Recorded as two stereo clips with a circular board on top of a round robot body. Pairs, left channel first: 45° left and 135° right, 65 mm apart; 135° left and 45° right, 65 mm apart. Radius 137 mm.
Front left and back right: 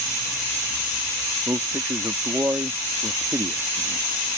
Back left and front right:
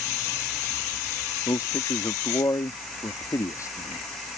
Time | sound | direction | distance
1.5 | a man speaking | 170° left | ?